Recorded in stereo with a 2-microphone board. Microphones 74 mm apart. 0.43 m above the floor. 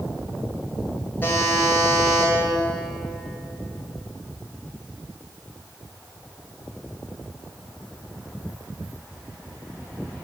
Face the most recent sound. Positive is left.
turn(degrees=25)  # may be behind; listen again after turning